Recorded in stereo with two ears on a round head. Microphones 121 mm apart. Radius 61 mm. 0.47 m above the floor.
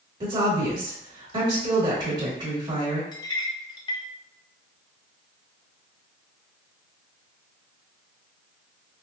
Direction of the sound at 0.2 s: 35° right (ahead or behind).